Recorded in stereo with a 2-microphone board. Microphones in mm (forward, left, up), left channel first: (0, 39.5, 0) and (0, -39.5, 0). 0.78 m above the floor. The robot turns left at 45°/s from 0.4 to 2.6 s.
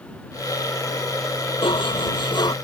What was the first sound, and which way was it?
Dishes clattering, 100° left.